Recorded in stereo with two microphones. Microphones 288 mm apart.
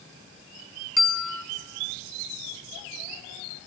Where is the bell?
80° left, 0.8 m.